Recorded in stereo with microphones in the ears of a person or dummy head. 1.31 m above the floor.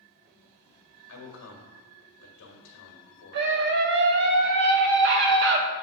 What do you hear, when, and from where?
1.1 s a man speaking: 65° left (ahead or behind), 1.6 m
3.3 s a scream: 50° right (ahead or behind), 0.7 m